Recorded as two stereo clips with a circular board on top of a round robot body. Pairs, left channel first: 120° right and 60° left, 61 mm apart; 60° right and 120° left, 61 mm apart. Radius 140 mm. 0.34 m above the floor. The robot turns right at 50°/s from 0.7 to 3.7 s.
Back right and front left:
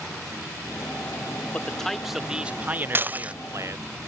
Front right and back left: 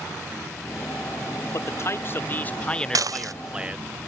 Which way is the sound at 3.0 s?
110° left.